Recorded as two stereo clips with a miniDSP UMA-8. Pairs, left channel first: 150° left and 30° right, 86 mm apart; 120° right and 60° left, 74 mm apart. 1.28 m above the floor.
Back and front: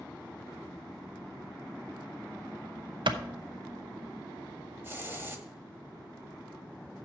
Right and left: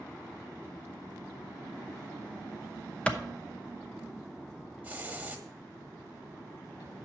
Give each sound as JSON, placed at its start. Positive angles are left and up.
{"t": 3.1, "sound": "a clap", "azimuth_deg": -50, "distance_m": 0.8}
{"t": 4.8, "sound": "a hiss", "azimuth_deg": 5, "distance_m": 1.2}